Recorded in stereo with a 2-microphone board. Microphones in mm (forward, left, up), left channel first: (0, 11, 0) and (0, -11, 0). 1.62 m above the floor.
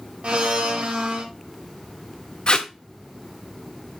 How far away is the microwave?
I don't hear a microwave.